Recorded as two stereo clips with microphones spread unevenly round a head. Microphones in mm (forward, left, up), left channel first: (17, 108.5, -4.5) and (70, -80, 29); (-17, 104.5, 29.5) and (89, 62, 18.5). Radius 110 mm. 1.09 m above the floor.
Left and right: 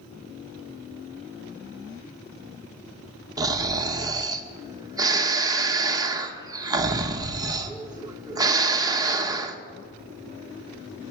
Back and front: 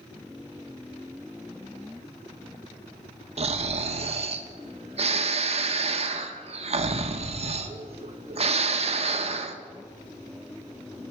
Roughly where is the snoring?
Ahead.